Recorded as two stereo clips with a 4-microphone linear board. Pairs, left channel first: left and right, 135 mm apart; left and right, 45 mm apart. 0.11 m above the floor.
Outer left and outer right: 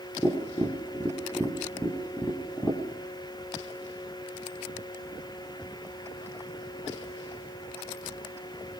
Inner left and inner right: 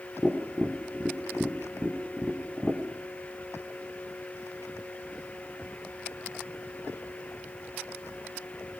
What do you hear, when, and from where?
0.2 s tapping: 20° left (ahead or behind), 4.5 m